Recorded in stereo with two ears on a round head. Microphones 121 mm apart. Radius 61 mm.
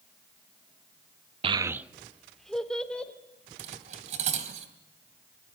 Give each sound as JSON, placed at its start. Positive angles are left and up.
{"t": 1.4, "sound": "a child speaking", "side_deg": -45, "distance_m": 0.5}
{"t": 3.6, "sound": "cutlery clinking", "side_deg": -55, "distance_m": 3.0}